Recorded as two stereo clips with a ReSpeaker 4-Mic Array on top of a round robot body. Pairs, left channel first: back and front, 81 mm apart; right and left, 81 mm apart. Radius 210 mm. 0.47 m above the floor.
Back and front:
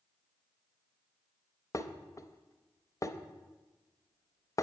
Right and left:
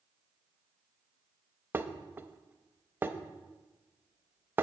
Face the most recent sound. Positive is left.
turn(degrees=150)